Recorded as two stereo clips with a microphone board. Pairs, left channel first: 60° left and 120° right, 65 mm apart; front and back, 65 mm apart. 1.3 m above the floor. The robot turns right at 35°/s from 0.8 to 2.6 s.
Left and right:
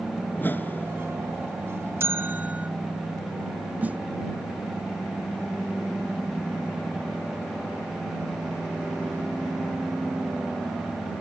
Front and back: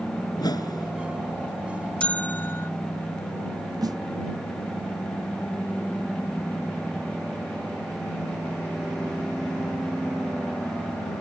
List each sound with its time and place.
0.3 s a whoosh: straight ahead
2.0 s a bell: 70° right; by 2.7 s 50° right
3.8 s a snare drum: 170° left